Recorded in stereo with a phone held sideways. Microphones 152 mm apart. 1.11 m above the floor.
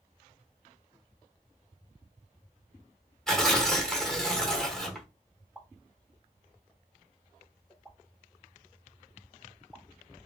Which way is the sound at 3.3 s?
5° left (ahead or behind).